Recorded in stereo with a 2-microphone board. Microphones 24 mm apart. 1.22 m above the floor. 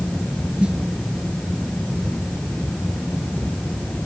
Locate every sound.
0.6 s a snare drum: 45° right (ahead or behind)